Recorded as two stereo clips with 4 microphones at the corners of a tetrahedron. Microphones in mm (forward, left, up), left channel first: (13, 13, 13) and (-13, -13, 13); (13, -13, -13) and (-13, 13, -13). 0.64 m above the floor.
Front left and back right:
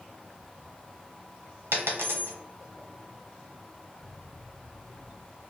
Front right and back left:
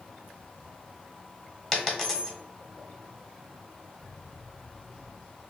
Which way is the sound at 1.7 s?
125° right.